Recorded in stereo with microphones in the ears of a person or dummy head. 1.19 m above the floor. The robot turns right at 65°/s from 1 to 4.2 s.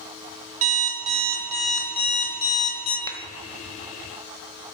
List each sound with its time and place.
0.6 s an alarm clock: 50° right, 1.2 m; by 3.0 s 80° left, 1.2 m
3.1 s a clap: 20° left (ahead or behind), 0.7 m; by 3.2 s 25° left (ahead or behind), 0.7 m